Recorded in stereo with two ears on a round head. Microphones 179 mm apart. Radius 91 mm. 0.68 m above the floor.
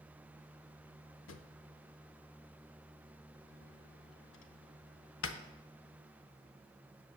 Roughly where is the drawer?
Left.